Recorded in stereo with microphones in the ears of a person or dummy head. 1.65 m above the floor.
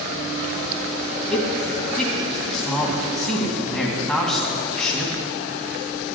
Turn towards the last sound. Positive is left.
turn(degrees=0)  # may be behind; listen again after turning